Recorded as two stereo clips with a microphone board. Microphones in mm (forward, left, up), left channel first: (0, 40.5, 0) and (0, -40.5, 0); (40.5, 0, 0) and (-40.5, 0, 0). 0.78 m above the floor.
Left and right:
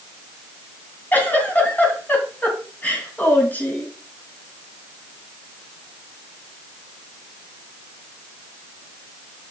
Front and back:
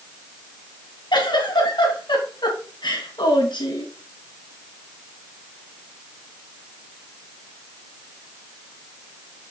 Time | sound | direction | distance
1.1 | a giggle | 20° left | 2.5 m